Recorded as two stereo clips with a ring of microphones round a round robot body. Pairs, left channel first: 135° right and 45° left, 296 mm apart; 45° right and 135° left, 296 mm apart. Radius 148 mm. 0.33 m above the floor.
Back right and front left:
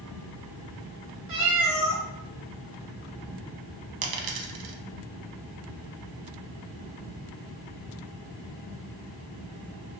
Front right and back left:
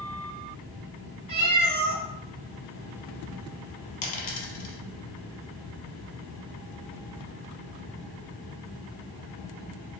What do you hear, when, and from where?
1.3 s a cat meowing: 75° left, 1.4 m
4.0 s a dropped coin: 20° left, 0.5 m